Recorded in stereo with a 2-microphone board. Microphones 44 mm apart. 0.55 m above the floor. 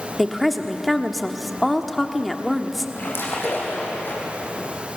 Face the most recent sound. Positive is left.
turn(degrees=60)  # may be behind; listen again after turning